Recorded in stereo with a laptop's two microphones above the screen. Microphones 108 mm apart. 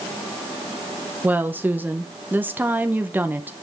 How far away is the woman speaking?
About 0.8 m.